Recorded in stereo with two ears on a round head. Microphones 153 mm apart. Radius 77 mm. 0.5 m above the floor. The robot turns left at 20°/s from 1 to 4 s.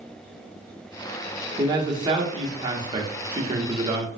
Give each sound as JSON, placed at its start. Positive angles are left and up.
{"t": 1.6, "sound": "a man speaking", "side_deg": -25, "distance_m": 0.8}